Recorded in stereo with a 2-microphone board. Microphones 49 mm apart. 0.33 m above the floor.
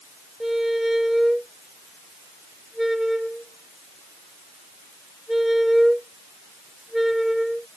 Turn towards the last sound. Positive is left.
turn(degrees=-5)  # may be behind; listen again after turning